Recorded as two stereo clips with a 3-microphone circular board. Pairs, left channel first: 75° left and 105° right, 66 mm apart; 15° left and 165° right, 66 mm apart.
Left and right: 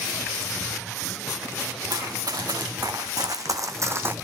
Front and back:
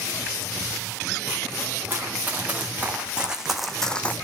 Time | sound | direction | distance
1.9 | running footsteps | 105° right | 2.5 m